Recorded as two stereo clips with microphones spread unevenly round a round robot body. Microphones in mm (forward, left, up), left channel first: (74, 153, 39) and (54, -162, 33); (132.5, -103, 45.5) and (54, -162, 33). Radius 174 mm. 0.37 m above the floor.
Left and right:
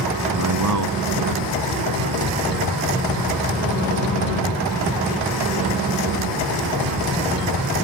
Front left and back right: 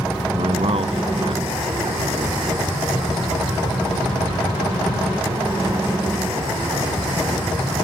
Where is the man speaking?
140° right; by 2.4 s 115° right.